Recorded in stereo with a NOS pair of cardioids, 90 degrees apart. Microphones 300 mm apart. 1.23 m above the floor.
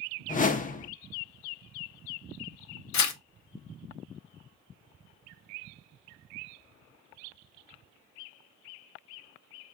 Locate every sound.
0.3 s a whoosh: 25° left, 0.6 m
2.9 s tearing paper: 65° left, 0.9 m